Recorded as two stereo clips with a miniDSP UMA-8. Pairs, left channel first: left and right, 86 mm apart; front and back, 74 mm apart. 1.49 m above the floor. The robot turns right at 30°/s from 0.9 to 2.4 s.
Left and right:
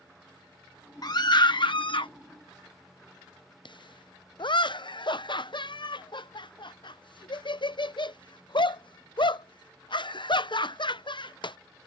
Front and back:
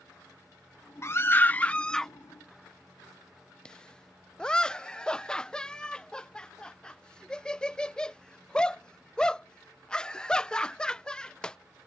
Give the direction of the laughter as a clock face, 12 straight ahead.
9 o'clock.